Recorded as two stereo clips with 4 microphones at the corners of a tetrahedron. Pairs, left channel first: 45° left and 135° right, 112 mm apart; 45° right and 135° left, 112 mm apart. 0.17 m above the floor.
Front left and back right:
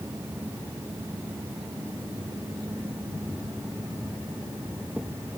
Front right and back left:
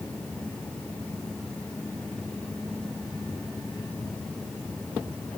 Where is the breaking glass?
No breaking glass in this recording.